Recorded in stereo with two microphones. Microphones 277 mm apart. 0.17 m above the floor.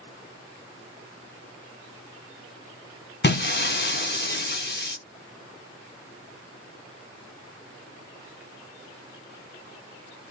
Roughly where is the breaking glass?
Left.